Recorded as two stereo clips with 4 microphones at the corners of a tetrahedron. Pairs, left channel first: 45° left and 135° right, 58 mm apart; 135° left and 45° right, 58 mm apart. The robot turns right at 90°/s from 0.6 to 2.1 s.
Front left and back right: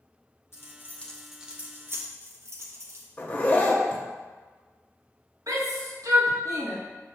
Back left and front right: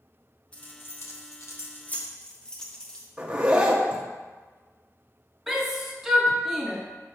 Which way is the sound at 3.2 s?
10° left.